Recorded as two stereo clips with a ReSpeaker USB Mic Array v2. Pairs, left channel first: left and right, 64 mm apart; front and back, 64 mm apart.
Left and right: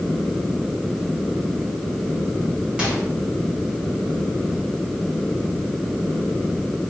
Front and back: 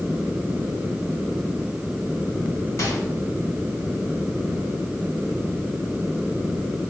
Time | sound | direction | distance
2.8 | a microwave | 15° right | 1.4 m